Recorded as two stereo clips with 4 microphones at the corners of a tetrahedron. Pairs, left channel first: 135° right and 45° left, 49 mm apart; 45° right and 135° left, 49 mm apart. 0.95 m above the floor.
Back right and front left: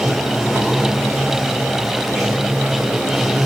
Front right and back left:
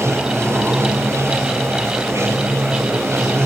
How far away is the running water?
About 3 m.